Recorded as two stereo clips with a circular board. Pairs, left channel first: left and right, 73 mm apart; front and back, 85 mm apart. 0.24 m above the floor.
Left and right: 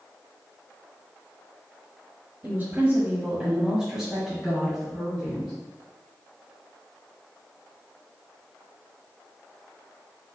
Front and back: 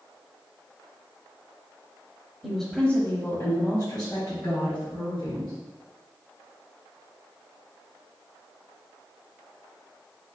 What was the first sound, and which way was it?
A woman speaking, 90° right.